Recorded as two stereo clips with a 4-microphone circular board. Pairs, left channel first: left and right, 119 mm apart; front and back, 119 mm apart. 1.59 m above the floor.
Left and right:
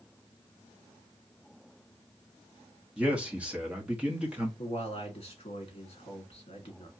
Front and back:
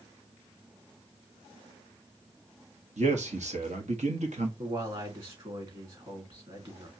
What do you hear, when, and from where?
3.0 s a man speaking: 170° right, 1.1 m
4.6 s a man speaking: 135° left, 1.9 m